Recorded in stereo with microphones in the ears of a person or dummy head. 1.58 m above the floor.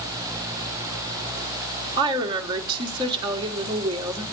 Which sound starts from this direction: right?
A woman speaking, at 2.0 s.